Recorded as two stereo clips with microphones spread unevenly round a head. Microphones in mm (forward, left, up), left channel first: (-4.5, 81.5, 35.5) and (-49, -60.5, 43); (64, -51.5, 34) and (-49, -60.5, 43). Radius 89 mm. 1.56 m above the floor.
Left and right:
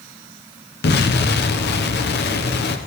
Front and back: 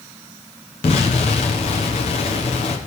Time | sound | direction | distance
0.8 | an explosion | 55° left | 1.0 m